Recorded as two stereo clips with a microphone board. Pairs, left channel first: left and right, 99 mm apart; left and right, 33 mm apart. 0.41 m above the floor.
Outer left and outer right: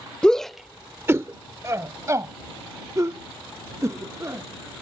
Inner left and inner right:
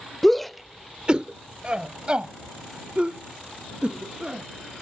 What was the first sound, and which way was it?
A shout, 10° left (ahead or behind).